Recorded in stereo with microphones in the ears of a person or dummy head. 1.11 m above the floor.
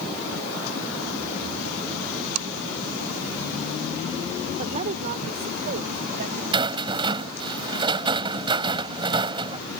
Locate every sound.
4.6 s a woman speaking: 35° right (ahead or behind); by 6.4 s 50° right (ahead or behind)
6.5 s a rattle: 25° right (ahead or behind)